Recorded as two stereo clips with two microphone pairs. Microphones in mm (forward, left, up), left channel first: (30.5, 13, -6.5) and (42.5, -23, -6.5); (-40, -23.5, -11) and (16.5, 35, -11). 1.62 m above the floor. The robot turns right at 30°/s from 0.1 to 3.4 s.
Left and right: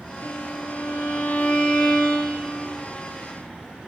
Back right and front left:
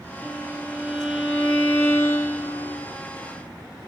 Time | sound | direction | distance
0.2 | a violin | 115° left | 1.6 m